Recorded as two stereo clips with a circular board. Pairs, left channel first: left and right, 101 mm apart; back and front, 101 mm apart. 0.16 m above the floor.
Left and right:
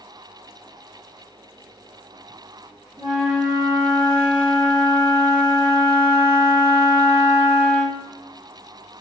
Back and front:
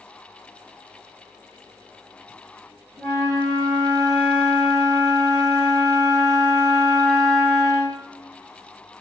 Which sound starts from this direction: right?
A flute, at 3.0 s.